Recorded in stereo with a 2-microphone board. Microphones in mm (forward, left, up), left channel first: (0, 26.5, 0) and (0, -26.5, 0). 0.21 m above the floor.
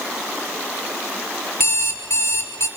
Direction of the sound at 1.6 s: 60° left (ahead or behind).